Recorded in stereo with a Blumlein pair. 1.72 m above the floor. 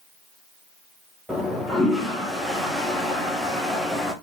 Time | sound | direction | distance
1.3 | a toilet flushing | straight ahead | 2.5 m